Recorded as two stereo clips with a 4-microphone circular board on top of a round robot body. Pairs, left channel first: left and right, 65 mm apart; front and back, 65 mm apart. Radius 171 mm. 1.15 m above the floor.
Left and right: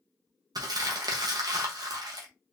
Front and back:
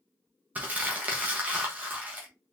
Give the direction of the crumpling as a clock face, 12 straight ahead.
4 o'clock.